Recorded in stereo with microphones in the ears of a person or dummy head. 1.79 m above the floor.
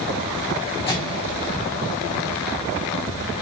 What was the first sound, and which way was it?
A microwave, 25° left (ahead or behind).